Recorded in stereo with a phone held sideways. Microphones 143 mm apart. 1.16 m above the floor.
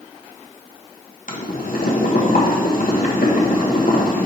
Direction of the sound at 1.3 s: 75° left (ahead or behind).